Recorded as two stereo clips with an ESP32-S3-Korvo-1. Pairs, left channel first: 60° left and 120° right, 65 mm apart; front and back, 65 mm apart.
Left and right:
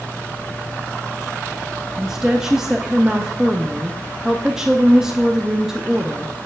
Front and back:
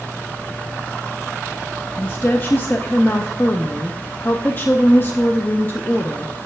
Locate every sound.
2.0 s a woman speaking: 45° right, 0.6 m